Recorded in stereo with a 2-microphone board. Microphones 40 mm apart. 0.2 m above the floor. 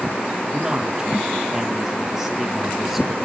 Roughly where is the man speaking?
Centre.